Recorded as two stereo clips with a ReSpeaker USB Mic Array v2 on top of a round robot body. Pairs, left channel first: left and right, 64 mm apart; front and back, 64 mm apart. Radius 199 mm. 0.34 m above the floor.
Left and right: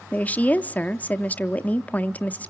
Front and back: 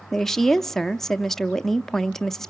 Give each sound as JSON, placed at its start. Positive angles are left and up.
{"t": 0.1, "sound": "a woman speaking", "azimuth_deg": 75, "distance_m": 0.8}